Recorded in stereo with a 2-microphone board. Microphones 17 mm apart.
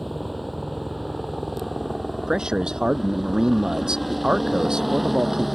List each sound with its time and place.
0.0 s a helicopter: centre (ahead or behind); by 5.5 s 5° right (ahead or behind)
2.3 s a man speaking: 55° right (ahead or behind)